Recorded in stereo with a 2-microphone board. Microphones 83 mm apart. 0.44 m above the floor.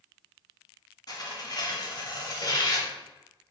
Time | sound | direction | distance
1.1 | tearing paper | 50° left (ahead or behind) | 0.8 m